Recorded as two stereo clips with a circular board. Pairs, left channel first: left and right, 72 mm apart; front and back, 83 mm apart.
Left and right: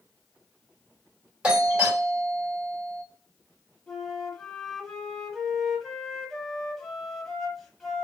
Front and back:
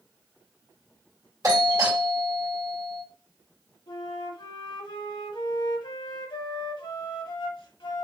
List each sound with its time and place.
1.4 s a doorbell: 160° right, 2 m
3.9 s a flute: 5° left, 1.1 m